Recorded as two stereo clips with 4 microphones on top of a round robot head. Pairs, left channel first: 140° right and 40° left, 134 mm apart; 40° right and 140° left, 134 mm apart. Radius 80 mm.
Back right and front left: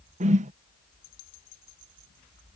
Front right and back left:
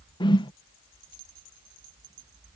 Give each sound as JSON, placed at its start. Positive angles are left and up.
{"t": 0.2, "sound": "a whoosh", "azimuth_deg": 15}